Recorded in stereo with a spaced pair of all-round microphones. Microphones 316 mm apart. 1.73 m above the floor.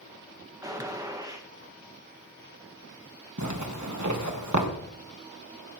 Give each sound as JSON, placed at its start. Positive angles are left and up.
{"t": 0.6, "sound": "a gunshot", "side_deg": -10, "distance_m": 1.5}
{"t": 3.4, "sound": "a zipper", "side_deg": -60, "distance_m": 1.6}